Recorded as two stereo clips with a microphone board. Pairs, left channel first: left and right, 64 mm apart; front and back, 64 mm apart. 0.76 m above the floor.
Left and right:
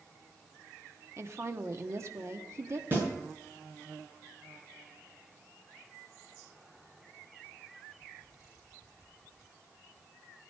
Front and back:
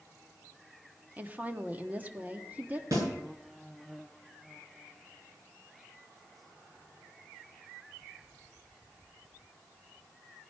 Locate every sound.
1.2 s a woman speaking: 120° right, 1.2 m
2.9 s a snare drum: 145° right, 8 m